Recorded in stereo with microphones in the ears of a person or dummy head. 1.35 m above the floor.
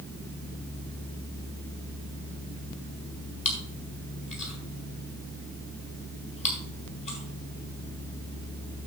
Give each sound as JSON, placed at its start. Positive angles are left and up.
{"t": 3.5, "sound": "chewing", "side_deg": 40, "distance_m": 4.5}